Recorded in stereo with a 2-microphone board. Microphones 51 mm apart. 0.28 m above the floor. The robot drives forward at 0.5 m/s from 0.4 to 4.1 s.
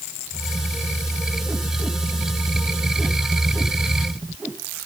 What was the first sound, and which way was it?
Only background noise.